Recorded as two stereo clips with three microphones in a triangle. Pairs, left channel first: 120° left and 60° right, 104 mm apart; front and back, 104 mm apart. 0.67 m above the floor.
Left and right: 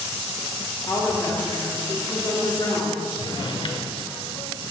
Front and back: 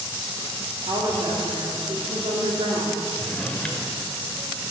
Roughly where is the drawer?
Left.